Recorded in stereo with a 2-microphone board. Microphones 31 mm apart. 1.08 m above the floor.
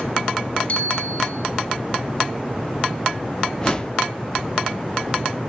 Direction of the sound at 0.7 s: 50° left (ahead or behind).